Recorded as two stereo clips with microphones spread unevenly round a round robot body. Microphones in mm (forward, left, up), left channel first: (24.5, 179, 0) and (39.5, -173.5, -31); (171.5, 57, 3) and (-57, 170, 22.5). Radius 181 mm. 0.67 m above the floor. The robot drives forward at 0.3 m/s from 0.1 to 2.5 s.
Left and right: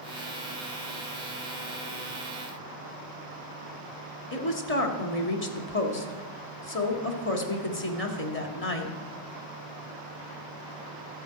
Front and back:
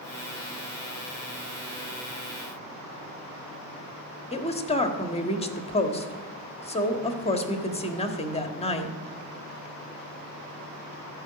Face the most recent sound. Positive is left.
turn(degrees=35)